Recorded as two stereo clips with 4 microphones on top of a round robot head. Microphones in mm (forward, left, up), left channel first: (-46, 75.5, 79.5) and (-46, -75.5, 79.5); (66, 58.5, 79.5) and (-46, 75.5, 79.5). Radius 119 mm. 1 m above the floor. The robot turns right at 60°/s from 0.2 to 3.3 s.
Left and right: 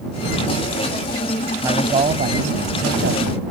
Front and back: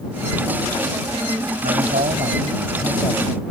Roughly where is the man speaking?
Behind.